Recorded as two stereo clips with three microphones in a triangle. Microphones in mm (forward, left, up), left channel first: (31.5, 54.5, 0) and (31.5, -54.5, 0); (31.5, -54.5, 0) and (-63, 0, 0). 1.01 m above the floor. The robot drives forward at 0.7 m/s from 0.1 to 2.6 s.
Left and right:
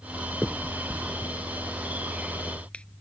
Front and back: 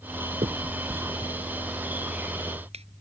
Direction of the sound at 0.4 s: 170° left.